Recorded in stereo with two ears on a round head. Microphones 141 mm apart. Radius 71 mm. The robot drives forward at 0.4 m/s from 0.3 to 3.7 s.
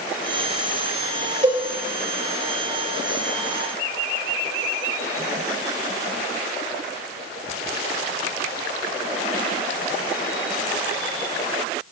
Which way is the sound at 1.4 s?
40° right (ahead or behind).